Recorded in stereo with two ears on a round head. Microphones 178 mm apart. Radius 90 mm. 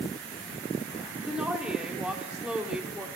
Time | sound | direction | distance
1.3 | a woman speaking | 5° right (ahead or behind) | 0.8 m